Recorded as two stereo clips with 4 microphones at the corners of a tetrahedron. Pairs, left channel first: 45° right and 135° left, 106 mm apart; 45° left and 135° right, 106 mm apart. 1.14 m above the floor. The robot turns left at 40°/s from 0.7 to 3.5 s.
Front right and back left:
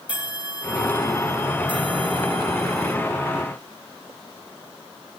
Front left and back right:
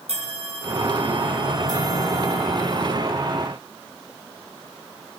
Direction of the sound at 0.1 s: 145° right.